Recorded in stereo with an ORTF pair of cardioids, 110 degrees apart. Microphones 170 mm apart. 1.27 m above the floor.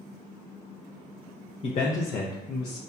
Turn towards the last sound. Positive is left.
turn(degrees=75)